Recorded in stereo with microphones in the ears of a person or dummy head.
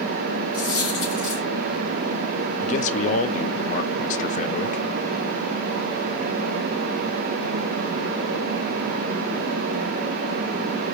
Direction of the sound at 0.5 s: 30° left (ahead or behind).